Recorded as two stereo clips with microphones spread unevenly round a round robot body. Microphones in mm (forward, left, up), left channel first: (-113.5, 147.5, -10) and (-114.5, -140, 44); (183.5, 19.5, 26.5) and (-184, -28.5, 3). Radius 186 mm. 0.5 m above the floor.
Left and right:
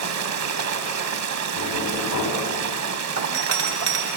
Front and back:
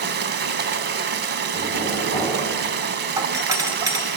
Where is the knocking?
90° left, 3.5 m.